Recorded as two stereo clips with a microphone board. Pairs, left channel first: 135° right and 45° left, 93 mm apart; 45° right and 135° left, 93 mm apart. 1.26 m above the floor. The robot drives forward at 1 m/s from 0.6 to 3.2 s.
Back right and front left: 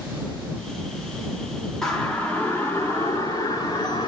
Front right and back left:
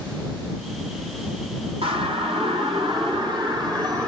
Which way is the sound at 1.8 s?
140° left.